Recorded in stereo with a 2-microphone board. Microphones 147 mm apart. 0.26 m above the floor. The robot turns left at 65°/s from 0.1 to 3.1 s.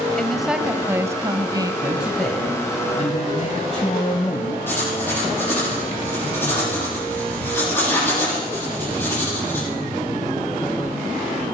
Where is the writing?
10° left (ahead or behind), 8.5 m.